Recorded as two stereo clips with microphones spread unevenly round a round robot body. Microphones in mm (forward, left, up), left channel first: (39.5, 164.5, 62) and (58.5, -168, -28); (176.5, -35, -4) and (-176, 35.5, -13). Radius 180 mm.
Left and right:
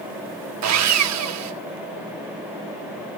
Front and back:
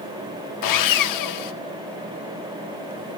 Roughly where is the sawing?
Ahead right.